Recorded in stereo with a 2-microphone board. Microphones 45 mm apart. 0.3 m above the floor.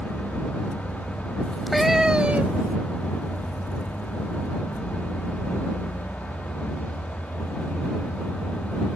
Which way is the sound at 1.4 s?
15° left (ahead or behind).